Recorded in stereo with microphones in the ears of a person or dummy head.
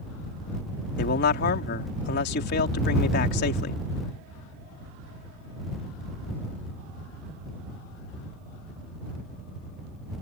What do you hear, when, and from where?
1.0 s a man speaking: 60° left (ahead or behind)